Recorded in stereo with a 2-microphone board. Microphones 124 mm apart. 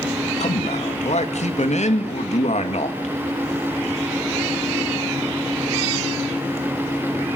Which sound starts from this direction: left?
A man speaking, at 0.4 s.